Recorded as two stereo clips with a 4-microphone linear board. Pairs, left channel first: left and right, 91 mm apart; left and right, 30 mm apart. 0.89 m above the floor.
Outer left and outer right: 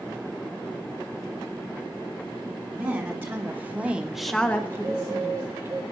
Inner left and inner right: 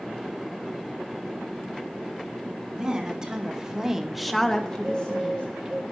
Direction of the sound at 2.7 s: 25° right (ahead or behind).